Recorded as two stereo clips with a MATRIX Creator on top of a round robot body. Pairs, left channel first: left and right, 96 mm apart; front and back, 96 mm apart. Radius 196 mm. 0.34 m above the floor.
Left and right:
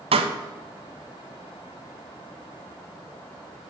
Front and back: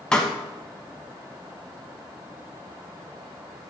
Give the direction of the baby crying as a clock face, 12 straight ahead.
I don't hear a baby crying.